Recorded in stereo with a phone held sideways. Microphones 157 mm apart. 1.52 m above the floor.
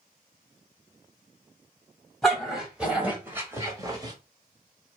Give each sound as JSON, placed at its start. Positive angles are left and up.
{"t": 2.2, "sound": "a dog barking", "side_deg": 0, "distance_m": 1.9}